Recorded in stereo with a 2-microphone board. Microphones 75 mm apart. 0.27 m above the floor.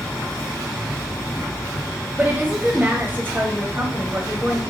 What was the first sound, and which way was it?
A woman speaking, 25° right (ahead or behind).